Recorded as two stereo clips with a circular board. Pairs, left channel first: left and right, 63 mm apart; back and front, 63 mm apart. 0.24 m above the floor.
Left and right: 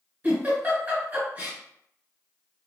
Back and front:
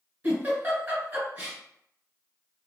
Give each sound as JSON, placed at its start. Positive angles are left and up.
{"t": 0.2, "sound": "a giggle", "azimuth_deg": -45, "distance_m": 1.4}